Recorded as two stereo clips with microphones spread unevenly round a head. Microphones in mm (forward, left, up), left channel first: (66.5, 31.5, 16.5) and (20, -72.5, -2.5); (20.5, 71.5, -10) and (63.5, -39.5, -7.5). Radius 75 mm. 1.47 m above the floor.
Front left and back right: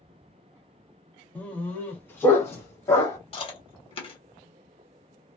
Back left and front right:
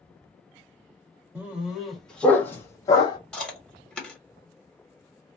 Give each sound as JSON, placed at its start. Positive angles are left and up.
{"t": 1.4, "sound": "a dog barking", "azimuth_deg": 5, "distance_m": 1.1}
{"t": 3.3, "sound": "chewing", "azimuth_deg": 25, "distance_m": 1.5}